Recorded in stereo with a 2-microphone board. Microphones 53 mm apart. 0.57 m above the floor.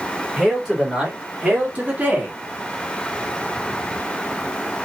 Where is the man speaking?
10° right (ahead or behind), 2.5 m; by 2.4 s 35° right (ahead or behind), 1.5 m.